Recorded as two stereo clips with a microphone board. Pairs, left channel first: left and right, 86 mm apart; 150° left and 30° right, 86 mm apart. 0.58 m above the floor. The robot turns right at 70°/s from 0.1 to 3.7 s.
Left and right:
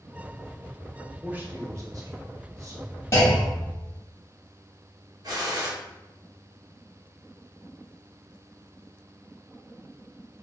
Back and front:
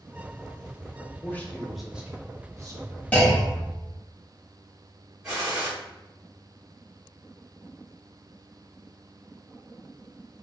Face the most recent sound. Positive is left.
turn(degrees=-110)